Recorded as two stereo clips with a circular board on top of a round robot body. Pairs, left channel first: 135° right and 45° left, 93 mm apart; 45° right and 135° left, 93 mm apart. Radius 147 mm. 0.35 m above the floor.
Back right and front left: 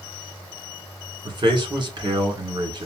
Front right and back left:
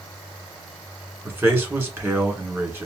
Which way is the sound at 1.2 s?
75° left.